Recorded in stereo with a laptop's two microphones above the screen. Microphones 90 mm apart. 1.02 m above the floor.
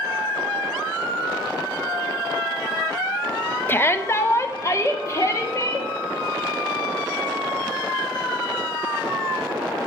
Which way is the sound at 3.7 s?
25° left (ahead or behind).